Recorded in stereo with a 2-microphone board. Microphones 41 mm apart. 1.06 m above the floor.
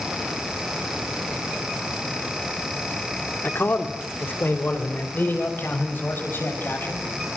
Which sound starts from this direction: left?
A man speaking, at 3.4 s.